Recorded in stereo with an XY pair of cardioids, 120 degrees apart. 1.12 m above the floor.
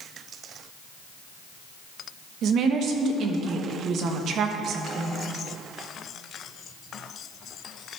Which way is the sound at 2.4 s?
60° right.